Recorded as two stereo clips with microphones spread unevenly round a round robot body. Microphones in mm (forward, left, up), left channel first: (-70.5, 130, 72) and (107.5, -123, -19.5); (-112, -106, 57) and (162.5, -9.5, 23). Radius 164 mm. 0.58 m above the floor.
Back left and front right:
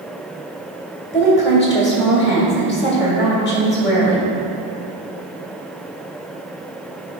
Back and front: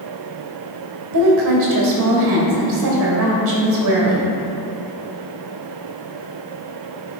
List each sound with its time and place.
1.1 s a woman speaking: 65° left, 2 m